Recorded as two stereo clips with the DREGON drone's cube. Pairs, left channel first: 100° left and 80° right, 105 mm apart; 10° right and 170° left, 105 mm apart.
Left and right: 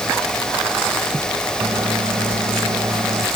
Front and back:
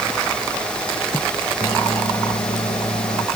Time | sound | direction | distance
1.6 | a microwave | 40° right | ?